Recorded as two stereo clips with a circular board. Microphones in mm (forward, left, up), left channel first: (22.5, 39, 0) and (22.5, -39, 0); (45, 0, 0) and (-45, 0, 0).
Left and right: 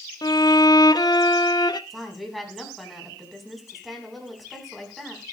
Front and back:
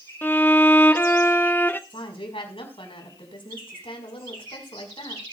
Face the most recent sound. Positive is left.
turn(degrees=0)